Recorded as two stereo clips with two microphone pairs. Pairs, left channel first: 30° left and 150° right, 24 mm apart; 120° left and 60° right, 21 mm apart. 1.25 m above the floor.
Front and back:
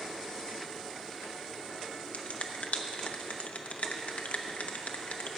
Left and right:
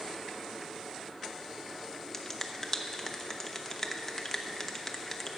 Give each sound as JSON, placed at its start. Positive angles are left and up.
{"t": 2.1, "sound": "a finger snap", "azimuth_deg": 45, "distance_m": 0.8}